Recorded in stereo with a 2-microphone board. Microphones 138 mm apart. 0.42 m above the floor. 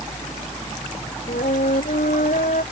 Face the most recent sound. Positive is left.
turn(degrees=80)